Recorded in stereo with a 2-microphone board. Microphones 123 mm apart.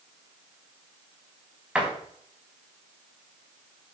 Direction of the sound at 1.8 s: 10° right (ahead or behind).